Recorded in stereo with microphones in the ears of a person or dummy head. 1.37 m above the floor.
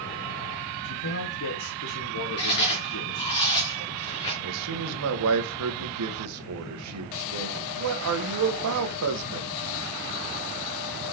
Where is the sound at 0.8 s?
75° left (ahead or behind), 1.4 m.